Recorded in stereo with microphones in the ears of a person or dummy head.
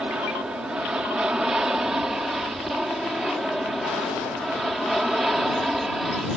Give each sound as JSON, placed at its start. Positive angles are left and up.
{"t": 0.0, "sound": "an aircraft", "side_deg": 0}